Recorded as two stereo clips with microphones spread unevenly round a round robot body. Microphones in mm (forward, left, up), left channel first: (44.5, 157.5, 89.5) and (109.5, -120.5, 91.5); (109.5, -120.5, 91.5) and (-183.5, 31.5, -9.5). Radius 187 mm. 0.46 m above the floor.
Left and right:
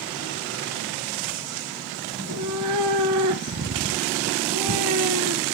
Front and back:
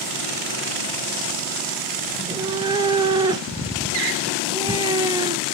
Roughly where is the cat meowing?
Behind right.